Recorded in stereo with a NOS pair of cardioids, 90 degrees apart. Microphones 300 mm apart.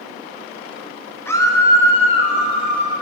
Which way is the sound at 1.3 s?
10° left.